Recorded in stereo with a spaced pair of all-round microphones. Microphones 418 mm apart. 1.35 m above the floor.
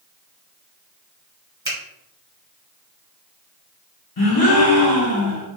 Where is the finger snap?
30° right (ahead or behind), 1.2 m.